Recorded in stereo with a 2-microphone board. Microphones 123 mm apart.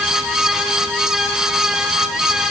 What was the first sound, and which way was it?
Only background noise.